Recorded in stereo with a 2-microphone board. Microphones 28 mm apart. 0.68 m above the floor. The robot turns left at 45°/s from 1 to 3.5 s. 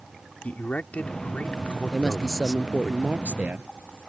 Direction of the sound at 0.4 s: 95° left.